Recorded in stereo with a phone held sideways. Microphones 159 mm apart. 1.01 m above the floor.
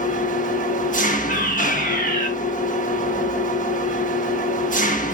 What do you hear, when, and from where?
0.0 s an engine running: 55° left (ahead or behind), 1.0 m
1.3 s a fire alarm: 70° left (ahead or behind), 4.5 m